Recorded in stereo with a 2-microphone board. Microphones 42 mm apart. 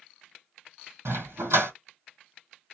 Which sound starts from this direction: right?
A dog barking, at 1.1 s.